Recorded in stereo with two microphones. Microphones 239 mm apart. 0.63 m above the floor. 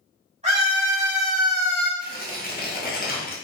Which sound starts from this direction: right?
A scream, at 0.4 s.